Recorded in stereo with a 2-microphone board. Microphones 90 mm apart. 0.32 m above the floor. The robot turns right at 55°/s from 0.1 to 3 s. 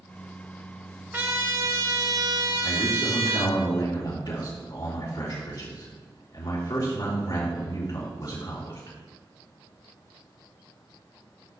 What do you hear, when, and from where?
1.1 s a trumpet: 150° right, 0.8 m; by 3.6 s 50° right, 0.8 m
2.6 s a man speaking: 60° left (ahead or behind), 3.5 m; by 8.9 s 45° left (ahead or behind), 3.5 m